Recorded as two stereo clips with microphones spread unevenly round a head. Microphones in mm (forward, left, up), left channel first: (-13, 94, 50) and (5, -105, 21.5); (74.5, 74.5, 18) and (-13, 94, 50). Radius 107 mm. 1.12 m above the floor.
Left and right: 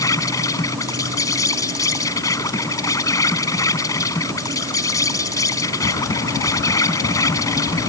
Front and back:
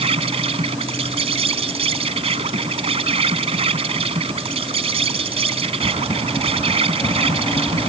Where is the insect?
170° left.